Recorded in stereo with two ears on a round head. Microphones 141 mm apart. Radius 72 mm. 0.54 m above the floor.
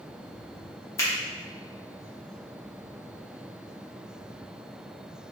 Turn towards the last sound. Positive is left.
turn(degrees=15)  # may be behind; listen again after turning